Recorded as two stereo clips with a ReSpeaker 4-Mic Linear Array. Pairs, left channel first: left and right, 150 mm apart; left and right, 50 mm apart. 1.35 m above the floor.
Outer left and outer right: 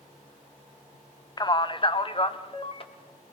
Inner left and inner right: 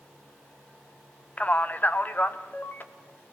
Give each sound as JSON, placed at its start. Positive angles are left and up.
{"t": 1.4, "sound": "a man speaking", "side_deg": 30, "distance_m": 0.7}